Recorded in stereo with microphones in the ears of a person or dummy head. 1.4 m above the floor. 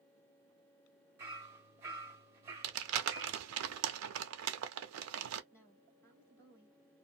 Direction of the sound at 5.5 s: 15° left (ahead or behind).